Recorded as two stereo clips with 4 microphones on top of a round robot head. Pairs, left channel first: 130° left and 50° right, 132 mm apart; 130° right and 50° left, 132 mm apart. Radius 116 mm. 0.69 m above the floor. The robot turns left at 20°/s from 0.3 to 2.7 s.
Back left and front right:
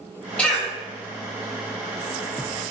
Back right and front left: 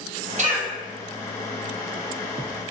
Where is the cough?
50° left, 1.5 m; by 0.7 s 45° left, 1.5 m.